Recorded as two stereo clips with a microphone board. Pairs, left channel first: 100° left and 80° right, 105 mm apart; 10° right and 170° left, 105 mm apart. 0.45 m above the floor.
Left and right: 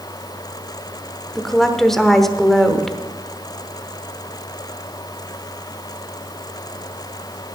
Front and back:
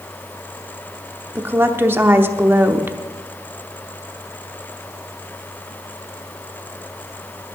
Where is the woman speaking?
175° right, 0.8 m.